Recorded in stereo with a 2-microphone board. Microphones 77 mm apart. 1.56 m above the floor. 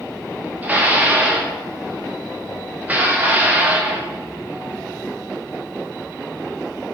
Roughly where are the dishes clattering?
Centre.